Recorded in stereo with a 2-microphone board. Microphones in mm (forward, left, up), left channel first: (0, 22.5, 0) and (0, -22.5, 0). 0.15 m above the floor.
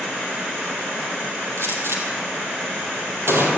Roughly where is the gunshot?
Right.